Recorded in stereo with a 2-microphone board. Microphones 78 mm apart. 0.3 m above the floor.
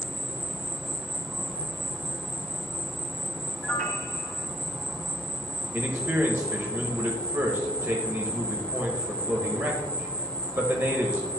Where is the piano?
15° left (ahead or behind), 1.0 m.